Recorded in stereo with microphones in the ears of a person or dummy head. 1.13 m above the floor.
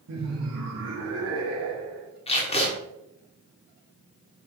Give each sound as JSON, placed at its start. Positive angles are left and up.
{"t": 0.1, "sound": "laughter", "side_deg": -75, "distance_m": 1.3}
{"t": 2.3, "sound": "tape being pulled", "side_deg": 25, "distance_m": 1.3}